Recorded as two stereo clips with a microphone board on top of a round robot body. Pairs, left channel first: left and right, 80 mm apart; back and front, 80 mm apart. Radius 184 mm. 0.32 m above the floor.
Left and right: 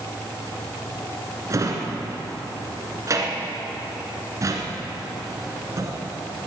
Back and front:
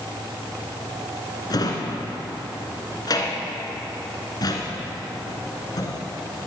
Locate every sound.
1.5 s a drawer: 140° right, 1.8 m